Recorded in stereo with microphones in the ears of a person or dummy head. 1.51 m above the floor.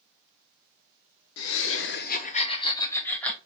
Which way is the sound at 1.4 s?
70° left (ahead or behind).